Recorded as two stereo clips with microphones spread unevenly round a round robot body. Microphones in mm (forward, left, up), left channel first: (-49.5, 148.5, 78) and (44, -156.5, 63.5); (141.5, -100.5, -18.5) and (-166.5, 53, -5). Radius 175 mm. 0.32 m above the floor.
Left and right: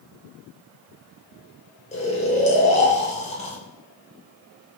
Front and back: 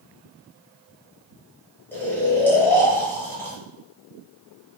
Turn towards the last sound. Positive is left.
turn(degrees=50)